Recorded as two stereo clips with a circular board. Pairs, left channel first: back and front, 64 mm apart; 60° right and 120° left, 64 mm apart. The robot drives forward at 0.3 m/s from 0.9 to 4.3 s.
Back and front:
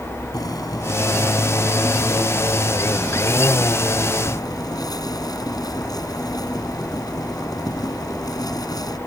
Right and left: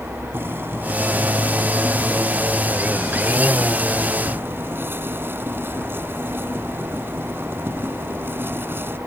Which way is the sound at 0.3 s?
175° left.